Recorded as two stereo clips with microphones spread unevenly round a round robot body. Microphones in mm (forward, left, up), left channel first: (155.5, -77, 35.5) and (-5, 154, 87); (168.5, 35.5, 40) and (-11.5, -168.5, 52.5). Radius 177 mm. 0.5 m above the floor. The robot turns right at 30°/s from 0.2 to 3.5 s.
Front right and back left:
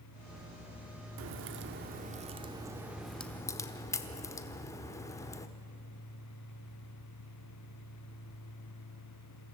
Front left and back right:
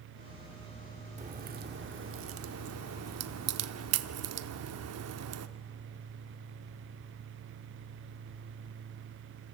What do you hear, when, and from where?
1.2 s a crack: 165° left, 0.9 m; by 5.5 s 125° right, 0.9 m